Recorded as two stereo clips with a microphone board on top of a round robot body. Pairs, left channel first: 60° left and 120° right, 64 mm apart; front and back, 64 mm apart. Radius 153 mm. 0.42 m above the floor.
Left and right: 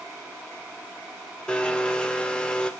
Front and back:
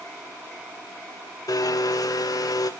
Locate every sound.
1.5 s a blender: 15° right, 1.2 m